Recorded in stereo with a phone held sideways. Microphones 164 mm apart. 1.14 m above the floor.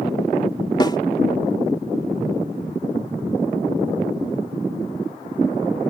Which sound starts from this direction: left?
A snare drum, at 0.8 s.